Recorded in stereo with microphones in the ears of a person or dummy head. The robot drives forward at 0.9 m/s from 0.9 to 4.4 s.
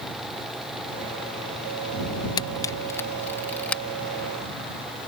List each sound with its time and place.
2.4 s a camera shutter: 30° left (ahead or behind); by 3.8 s 10° left (ahead or behind)